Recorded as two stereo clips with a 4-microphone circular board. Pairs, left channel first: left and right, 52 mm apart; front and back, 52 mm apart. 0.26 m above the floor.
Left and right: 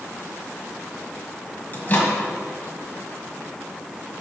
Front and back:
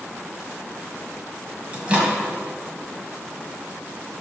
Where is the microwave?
130° left, 1.6 m.